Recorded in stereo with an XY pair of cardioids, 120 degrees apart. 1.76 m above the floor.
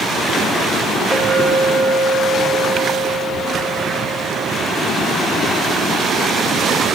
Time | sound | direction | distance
1.1 | a clink | 15° left | 6 m